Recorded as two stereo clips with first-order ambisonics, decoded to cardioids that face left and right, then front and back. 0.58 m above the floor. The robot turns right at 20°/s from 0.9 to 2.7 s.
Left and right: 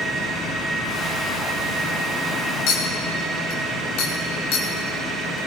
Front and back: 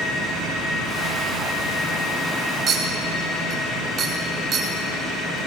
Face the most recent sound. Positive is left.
turn(degrees=120)